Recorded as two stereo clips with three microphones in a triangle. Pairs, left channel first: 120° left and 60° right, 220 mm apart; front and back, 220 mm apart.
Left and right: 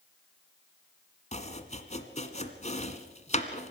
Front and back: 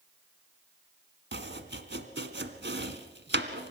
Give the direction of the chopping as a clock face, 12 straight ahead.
6 o'clock.